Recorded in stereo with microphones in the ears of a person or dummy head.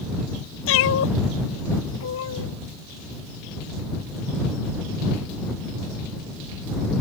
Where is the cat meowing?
75° left (ahead or behind).